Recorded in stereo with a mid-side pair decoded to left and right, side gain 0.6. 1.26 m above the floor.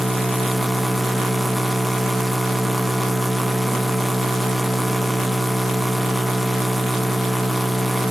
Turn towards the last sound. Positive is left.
turn(degrees=-5)